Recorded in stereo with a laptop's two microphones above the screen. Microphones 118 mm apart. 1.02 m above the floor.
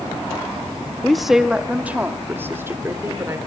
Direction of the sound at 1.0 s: 5° left (ahead or behind).